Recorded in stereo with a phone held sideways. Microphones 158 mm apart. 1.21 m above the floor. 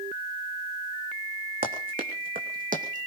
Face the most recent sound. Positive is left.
turn(degrees=-55)  # may be behind; listen again after turning